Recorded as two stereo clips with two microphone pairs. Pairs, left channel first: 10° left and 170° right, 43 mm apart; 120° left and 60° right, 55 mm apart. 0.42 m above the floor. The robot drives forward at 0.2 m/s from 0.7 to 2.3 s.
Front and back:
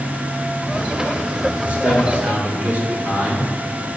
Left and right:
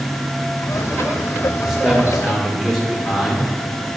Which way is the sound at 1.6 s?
145° right.